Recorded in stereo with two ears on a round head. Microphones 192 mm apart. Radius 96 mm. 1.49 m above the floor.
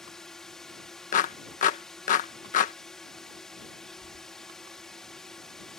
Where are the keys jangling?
45° right (ahead or behind).